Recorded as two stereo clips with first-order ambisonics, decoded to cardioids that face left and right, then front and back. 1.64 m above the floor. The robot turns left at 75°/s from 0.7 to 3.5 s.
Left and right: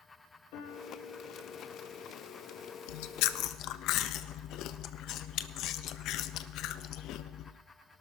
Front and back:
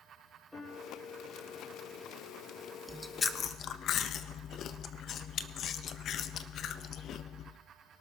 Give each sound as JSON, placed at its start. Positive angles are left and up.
{"t": 0.5, "sound": "a piano", "azimuth_deg": 85, "distance_m": 5.5}
{"t": 2.9, "sound": "chewing", "azimuth_deg": 100, "distance_m": 0.5}